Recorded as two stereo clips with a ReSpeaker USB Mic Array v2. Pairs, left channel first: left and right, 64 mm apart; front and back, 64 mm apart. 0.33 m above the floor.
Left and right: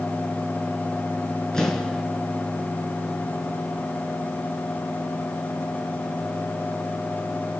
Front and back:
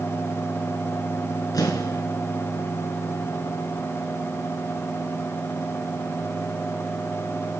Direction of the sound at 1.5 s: 10° left.